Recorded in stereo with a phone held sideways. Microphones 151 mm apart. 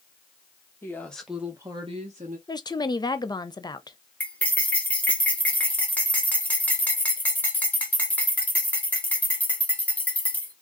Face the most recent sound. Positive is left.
turn(degrees=10)  # may be behind; listen again after turning